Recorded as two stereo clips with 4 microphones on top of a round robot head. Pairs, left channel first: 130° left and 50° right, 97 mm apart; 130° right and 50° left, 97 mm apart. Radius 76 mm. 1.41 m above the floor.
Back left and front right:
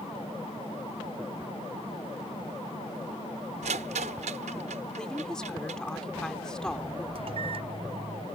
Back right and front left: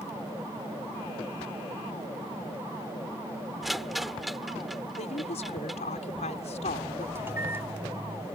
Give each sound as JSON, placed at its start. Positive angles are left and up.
{"t": 3.6, "sound": "a rattle", "azimuth_deg": -40}
{"t": 5.0, "sound": "a woman speaking", "azimuth_deg": -145}
{"t": 7.2, "sound": "a microwave", "azimuth_deg": -20}